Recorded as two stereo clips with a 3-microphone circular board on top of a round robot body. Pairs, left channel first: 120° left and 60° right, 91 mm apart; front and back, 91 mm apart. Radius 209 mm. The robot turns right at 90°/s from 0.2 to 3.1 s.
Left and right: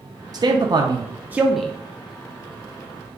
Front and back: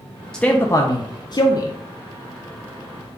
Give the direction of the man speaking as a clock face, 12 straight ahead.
3 o'clock.